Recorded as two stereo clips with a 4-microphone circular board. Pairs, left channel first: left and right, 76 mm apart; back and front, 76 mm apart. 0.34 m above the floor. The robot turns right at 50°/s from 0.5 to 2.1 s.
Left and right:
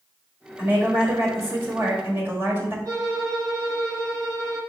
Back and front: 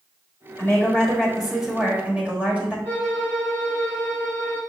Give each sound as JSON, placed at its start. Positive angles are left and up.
{"t": 0.6, "sound": "a woman speaking", "azimuth_deg": -135, "distance_m": 1.4}
{"t": 2.9, "sound": "a violin", "azimuth_deg": -65, "distance_m": 2.5}